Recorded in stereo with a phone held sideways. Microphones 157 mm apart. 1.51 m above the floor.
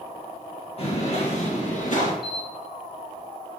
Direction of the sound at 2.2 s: 80° left.